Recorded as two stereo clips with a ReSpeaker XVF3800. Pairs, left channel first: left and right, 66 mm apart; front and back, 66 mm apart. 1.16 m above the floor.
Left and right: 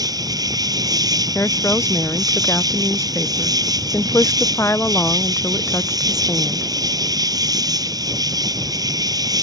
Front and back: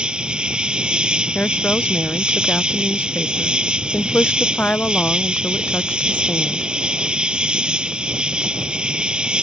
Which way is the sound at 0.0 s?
105° right.